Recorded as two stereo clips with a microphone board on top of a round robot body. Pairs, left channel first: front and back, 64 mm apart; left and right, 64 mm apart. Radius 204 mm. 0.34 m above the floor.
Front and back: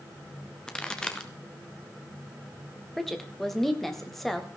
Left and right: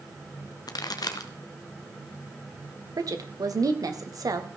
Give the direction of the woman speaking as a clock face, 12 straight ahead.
3 o'clock.